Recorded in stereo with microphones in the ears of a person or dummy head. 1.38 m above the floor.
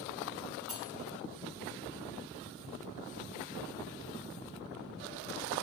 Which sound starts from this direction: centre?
Cutlery clinking, at 0.7 s.